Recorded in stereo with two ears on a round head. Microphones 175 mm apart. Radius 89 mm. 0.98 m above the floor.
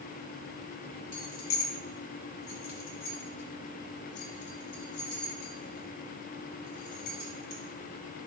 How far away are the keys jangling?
About 1.3 m.